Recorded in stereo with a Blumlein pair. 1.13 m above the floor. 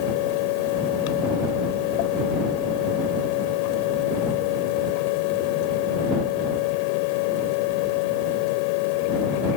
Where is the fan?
45° left.